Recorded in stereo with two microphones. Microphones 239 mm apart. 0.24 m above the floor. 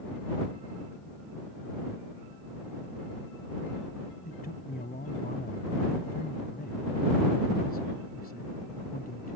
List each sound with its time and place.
4.2 s a man speaking: 40° left (ahead or behind)